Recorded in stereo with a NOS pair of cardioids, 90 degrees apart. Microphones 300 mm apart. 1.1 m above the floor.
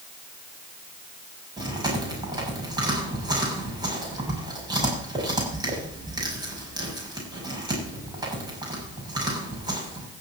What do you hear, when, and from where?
1.6 s chewing: 15° right, 7 m